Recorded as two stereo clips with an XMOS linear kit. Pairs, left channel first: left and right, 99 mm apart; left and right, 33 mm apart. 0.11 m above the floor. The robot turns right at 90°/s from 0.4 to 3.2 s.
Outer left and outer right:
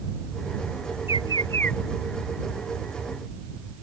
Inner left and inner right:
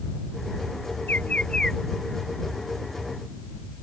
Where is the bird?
110° left; by 1.8 s 175° left.